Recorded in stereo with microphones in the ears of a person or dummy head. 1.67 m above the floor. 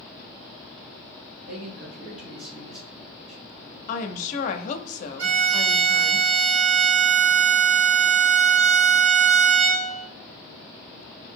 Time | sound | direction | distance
1.5 | a man speaking | 40° right (ahead or behind) | 0.8 m
3.9 | a woman speaking | 50° left (ahead or behind) | 0.5 m
5.2 | a violin | 65° right (ahead or behind) | 0.8 m